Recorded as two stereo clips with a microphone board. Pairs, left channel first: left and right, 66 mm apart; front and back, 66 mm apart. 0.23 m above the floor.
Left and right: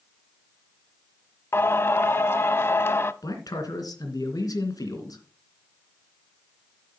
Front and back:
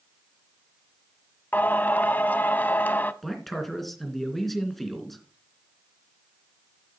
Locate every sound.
1.5 s singing: 50° left, 0.5 m
3.2 s a man speaking: 85° left, 2.5 m